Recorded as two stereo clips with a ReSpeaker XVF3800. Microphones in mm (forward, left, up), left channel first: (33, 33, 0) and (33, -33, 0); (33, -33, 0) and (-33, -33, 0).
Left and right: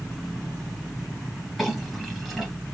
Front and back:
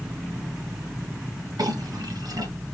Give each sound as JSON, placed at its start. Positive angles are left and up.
{"t": 1.6, "sound": "a clink", "azimuth_deg": 180, "distance_m": 3.0}